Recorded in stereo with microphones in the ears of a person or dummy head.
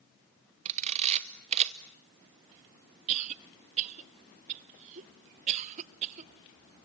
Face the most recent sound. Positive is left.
turn(degrees=-40)  # may be behind; listen again after turning